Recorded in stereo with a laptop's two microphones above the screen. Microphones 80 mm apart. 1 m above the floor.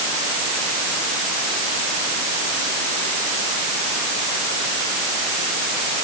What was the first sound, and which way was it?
Only background noise.